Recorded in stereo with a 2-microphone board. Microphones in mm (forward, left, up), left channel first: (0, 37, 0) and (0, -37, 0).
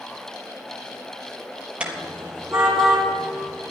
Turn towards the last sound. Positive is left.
turn(degrees=0)  # may be behind; listen again after turning